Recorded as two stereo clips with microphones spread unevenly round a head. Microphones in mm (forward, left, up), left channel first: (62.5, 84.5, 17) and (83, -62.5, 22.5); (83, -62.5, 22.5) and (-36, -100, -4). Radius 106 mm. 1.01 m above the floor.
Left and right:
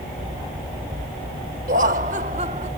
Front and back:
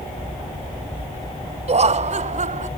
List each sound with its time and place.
1.7 s laughter: 130° right; by 2.7 s 145° right